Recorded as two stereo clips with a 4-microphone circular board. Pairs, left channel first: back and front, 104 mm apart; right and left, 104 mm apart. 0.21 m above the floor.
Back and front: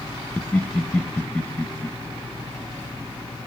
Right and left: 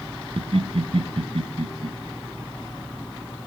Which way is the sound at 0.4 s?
105° left.